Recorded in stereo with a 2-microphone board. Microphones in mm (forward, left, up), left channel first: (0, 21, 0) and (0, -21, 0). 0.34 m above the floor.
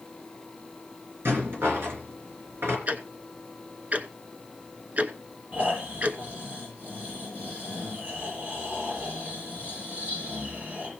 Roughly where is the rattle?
Right.